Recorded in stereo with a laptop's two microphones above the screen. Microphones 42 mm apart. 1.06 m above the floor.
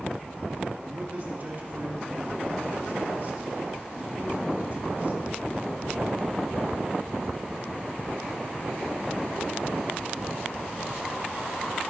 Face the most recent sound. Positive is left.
turn(degrees=-40)  # may be behind; listen again after turning